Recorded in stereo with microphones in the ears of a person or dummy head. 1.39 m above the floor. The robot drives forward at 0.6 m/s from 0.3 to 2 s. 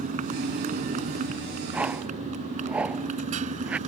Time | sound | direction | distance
0.0 | a motorcycle | 45° right (ahead or behind) | ?
1.7 | a whoosh | 10° right (ahead or behind) | ?